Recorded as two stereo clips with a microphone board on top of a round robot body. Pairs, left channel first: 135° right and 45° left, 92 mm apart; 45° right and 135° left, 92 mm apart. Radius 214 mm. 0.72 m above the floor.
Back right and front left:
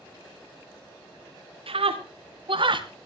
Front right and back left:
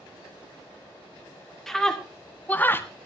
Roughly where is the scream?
Ahead left.